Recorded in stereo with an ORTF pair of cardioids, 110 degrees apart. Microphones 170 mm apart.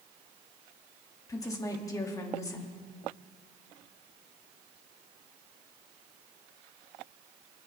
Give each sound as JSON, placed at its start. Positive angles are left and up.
{"t": 1.3, "sound": "a woman speaking", "azimuth_deg": 20, "distance_m": 2.5}